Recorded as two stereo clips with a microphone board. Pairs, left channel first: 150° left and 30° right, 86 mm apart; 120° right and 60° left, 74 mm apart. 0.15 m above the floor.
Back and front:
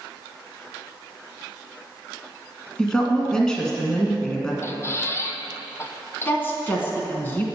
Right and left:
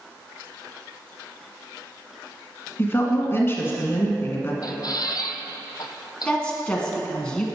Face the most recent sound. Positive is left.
turn(degrees=180)